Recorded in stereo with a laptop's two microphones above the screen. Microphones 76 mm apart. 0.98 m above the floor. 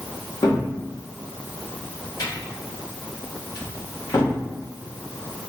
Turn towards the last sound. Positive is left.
turn(degrees=60)  # may be behind; listen again after turning